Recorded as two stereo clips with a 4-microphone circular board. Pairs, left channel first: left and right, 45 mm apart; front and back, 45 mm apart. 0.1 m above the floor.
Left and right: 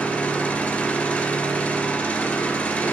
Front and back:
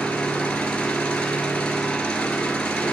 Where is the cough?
I don't hear a cough.